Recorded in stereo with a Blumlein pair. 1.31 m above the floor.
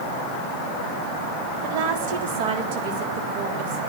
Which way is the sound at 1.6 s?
50° right.